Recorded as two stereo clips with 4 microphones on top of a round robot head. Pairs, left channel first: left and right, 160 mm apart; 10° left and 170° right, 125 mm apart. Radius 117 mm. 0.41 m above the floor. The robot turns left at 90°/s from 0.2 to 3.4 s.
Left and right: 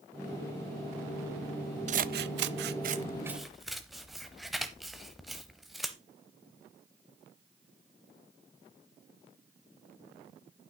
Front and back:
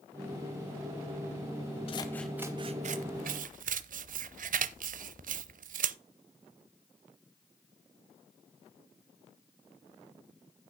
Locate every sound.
1.9 s scissors: 45° right, 0.6 m; by 6.0 s straight behind, 0.6 m